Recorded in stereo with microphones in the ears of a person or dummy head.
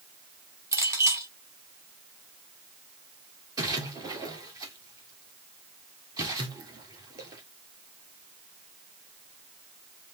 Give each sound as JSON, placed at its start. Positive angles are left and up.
{"t": 0.7, "sound": "a clink", "side_deg": -20, "distance_m": 1.8}
{"t": 3.6, "sound": "a splash", "side_deg": -25, "distance_m": 1.8}